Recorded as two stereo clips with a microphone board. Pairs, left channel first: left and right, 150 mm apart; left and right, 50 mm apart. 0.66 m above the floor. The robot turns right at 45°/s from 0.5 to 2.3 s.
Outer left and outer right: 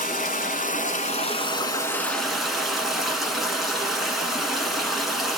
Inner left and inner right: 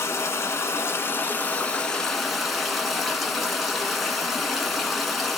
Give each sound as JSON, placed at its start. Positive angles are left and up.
{"t": 0.0, "sound": "running water", "azimuth_deg": 100, "distance_m": 1.2}